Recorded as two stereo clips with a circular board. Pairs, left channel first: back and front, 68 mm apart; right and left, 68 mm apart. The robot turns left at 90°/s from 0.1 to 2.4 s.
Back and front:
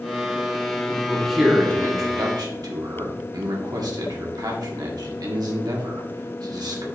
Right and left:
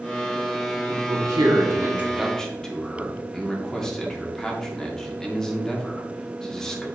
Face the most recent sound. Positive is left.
turn(degrees=-10)